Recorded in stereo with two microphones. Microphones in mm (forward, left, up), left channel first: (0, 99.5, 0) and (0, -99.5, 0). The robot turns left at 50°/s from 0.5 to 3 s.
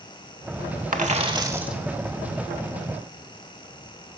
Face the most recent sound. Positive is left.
turn(degrees=120)